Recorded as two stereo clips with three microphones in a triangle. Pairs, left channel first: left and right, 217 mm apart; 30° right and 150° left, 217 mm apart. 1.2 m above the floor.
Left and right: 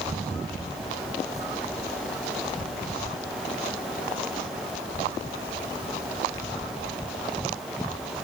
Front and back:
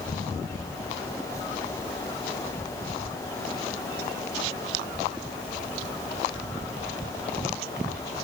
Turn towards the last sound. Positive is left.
No sound to turn to.